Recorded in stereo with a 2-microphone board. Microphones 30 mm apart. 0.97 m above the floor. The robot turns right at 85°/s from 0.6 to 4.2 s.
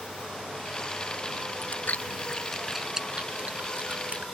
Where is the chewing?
70° left (ahead or behind); by 4.3 s 50° right (ahead or behind).